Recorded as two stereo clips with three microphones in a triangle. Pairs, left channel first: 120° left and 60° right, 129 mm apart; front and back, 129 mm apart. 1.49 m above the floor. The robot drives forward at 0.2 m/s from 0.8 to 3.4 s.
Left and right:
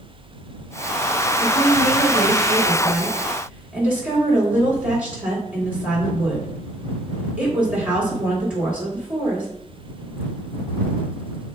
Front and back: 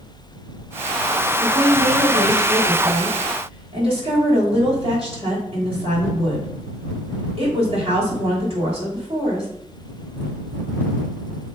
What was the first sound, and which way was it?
A woman speaking, 135° right.